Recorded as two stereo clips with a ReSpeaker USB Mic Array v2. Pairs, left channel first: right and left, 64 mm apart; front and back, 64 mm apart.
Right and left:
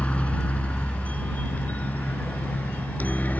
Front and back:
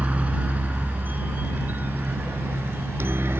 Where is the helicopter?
140° right; by 3.4 s 145° right.